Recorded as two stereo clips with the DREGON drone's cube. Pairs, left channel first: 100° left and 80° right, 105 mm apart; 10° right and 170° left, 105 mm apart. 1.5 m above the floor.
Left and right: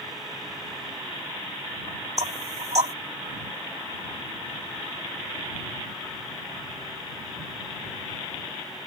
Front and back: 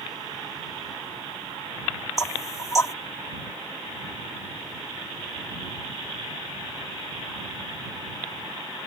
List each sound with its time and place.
2.2 s knocking: 70° right